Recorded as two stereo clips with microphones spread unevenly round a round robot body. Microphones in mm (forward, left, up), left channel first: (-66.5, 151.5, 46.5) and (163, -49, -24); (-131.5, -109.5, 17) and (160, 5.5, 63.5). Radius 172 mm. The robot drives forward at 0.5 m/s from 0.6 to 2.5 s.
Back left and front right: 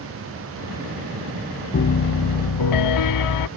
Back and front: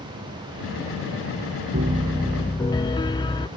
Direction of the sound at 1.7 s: 85° left.